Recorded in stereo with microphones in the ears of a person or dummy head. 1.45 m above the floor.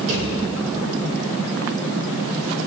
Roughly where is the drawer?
Right.